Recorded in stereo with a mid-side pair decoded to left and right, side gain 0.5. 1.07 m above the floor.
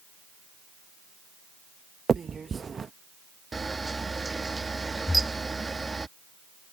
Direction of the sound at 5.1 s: 10° left.